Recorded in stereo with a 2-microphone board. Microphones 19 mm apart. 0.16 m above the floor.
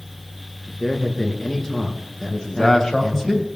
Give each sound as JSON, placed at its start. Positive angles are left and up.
{"t": 0.7, "sound": "a man speaking", "side_deg": 30, "distance_m": 2.0}
{"t": 2.3, "sound": "a man speaking", "side_deg": 35, "distance_m": 3.0}